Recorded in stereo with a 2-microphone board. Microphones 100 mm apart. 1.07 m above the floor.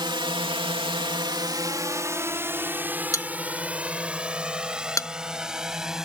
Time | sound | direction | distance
0.0 | a drone | 50° right (ahead or behind) | ?
3.1 | a bell | 35° left (ahead or behind) | ?